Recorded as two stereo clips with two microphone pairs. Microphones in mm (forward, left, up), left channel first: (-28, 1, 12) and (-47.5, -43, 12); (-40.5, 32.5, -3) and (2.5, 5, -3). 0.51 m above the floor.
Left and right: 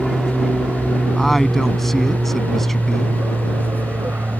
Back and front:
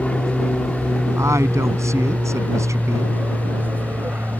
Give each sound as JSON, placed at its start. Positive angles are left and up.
{"t": 0.0, "sound": "an aircraft", "azimuth_deg": 175}
{"t": 1.2, "sound": "a woman speaking", "azimuth_deg": -20}